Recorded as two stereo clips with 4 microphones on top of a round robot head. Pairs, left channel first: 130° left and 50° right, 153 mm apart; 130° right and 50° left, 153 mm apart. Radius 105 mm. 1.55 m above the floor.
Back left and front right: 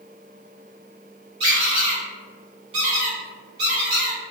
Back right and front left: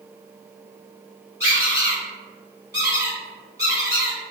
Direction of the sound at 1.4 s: 15° right.